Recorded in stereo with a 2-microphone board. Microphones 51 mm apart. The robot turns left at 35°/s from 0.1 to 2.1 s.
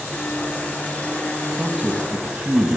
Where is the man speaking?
15° right (ahead or behind), 1.3 m; by 2.8 s 20° right (ahead or behind), 1.3 m.